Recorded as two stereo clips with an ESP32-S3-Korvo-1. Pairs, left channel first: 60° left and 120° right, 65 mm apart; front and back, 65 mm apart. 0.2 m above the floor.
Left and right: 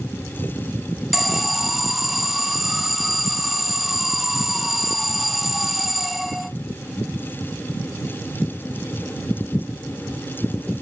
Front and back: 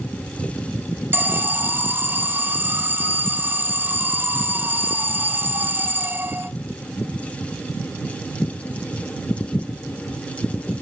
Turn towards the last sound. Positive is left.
turn(degrees=155)